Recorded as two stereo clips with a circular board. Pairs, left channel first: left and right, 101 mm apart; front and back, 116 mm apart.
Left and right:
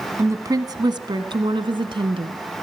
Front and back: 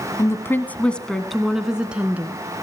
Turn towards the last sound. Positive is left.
turn(degrees=-105)